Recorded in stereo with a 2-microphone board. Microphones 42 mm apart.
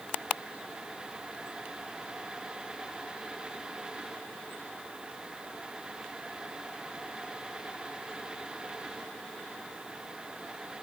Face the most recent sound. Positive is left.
No sound to turn to.